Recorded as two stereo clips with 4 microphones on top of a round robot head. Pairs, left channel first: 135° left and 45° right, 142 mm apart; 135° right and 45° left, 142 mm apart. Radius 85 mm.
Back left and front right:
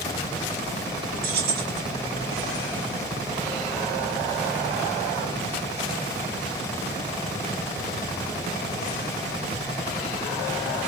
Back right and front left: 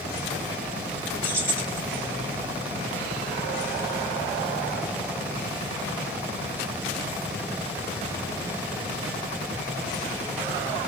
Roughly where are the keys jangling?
Ahead right.